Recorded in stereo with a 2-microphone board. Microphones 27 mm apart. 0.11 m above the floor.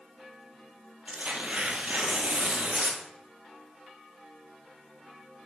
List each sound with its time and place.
1.1 s tearing paper: 55° right (ahead or behind), 1.6 m